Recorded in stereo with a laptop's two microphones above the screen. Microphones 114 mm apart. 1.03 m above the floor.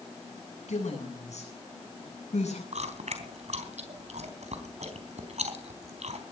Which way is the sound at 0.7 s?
80° left.